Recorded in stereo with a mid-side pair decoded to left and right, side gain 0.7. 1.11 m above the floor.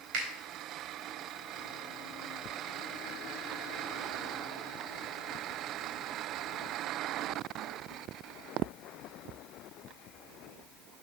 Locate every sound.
0.1 s a finger snap: 65° right, 4 m